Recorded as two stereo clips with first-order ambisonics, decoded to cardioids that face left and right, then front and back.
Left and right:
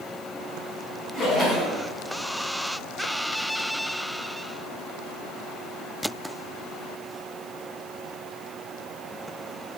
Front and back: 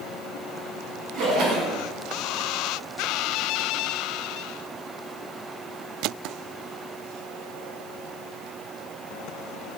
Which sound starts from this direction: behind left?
A splash, at 1.1 s.